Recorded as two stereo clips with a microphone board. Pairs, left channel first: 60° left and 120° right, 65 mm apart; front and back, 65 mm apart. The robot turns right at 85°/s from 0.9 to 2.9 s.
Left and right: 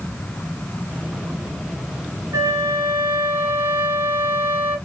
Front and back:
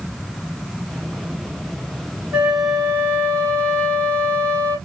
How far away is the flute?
About 0.9 m.